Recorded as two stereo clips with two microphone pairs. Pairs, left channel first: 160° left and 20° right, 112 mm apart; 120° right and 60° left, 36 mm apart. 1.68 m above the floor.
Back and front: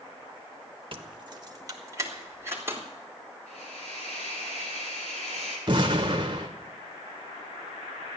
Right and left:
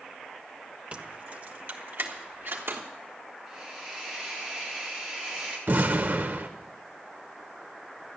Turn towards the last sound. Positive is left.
turn(degrees=30)